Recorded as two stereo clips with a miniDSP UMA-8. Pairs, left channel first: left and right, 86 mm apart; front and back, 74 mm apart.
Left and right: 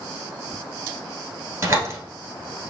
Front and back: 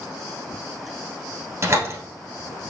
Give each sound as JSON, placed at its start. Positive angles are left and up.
{"t": 1.6, "sound": "a door slam", "azimuth_deg": -145, "distance_m": 1.4}